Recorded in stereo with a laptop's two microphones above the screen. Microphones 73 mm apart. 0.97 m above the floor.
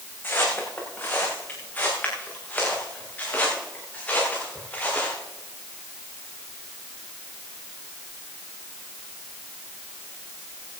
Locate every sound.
0.2 s footsteps: 25° left (ahead or behind), 5.5 m; by 5.2 s 15° left (ahead or behind), 8.5 m